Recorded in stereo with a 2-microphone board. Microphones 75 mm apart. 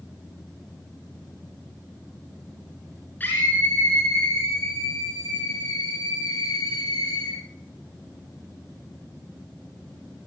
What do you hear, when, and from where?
3.2 s a scream: 25° left (ahead or behind), 4 m; by 7.4 s 60° left (ahead or behind), 5.5 m